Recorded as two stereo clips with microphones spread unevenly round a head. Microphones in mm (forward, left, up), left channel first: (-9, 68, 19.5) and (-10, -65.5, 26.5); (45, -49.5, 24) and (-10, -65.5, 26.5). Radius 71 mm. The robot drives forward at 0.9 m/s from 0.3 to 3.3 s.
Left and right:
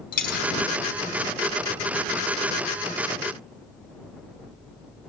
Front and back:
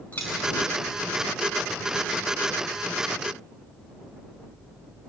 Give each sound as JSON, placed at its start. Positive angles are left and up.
{"t": 0.1, "sound": "a dropped coin", "azimuth_deg": 95, "distance_m": 2.5}